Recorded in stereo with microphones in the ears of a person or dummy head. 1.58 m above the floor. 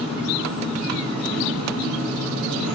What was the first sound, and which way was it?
An engine running, 60° right (ahead or behind).